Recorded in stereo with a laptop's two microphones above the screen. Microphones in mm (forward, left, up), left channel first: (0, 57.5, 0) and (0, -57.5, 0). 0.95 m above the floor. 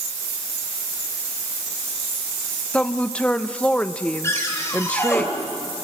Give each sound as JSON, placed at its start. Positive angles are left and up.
{"t": 2.7, "sound": "a woman speaking", "side_deg": 10, "distance_m": 0.6}
{"t": 4.2, "sound": "a cupboard door", "side_deg": 25, "distance_m": 2.5}